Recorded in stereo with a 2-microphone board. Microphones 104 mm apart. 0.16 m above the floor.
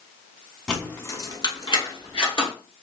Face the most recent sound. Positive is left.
turn(degrees=55)  # may be behind; listen again after turning